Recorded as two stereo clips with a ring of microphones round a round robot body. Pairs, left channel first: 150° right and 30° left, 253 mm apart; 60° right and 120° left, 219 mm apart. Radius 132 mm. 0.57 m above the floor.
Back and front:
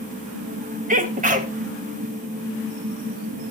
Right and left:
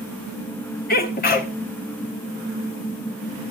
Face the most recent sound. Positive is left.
turn(degrees=-20)